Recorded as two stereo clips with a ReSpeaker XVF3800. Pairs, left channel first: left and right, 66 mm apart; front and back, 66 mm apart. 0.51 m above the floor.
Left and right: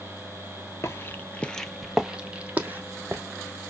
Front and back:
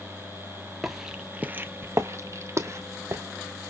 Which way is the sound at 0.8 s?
95° left.